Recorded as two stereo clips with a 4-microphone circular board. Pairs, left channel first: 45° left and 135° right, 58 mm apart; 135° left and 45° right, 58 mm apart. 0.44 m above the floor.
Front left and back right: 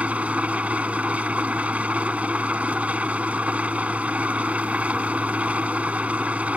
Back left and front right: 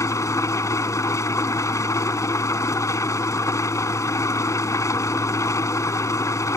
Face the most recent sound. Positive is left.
turn(degrees=160)